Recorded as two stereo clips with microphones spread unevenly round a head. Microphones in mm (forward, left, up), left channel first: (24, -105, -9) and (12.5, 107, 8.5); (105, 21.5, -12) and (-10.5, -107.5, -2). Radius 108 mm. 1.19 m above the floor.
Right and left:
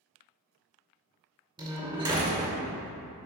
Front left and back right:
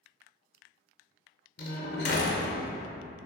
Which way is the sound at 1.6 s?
25° left.